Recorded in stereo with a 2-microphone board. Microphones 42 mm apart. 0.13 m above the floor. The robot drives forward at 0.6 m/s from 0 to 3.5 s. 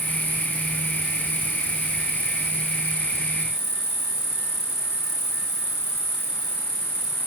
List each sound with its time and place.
0.0 s an insect: 70° left (ahead or behind); by 7.3 s 80° left